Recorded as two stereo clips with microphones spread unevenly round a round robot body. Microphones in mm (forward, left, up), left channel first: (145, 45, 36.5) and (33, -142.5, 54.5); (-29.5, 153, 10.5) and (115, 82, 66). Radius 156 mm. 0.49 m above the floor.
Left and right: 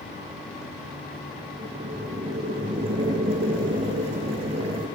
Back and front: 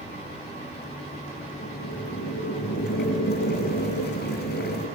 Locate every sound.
1.6 s boiling: 165° left, 7 m